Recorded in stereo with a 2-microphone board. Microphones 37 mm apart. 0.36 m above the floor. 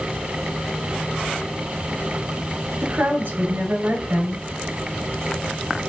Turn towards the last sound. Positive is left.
turn(degrees=-75)  # may be behind; listen again after turning